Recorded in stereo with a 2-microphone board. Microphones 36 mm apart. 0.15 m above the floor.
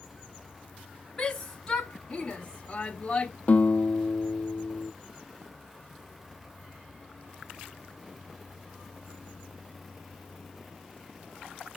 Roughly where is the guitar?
Left.